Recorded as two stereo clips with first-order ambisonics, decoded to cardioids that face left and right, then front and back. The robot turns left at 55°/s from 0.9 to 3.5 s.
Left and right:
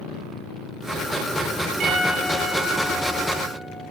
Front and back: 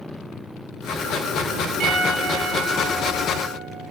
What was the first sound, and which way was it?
A piano, 135° right.